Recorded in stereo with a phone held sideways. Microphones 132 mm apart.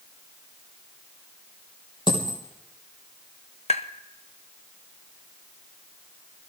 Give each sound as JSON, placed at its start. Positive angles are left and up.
{"t": 2.1, "sound": "a dropped coin", "side_deg": 40, "distance_m": 3.5}
{"t": 3.7, "sound": "tapping", "side_deg": 55, "distance_m": 0.8}